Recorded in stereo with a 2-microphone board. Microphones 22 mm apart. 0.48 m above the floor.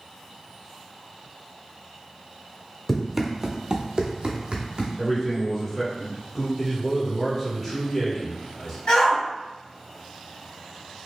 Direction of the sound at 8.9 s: 55° left (ahead or behind).